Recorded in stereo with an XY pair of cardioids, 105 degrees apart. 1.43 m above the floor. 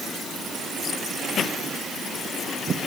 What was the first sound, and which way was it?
Only background noise.